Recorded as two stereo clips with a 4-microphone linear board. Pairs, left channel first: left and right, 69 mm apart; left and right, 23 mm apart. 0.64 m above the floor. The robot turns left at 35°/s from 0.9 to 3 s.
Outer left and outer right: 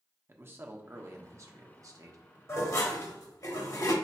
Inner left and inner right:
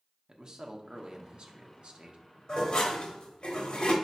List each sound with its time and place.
0.3 s a man speaking: 45° right, 0.8 m; by 2.2 s 90° right, 0.8 m
2.5 s dishes clattering: 40° left (ahead or behind), 1.2 m; by 3.9 s 55° left (ahead or behind), 1.2 m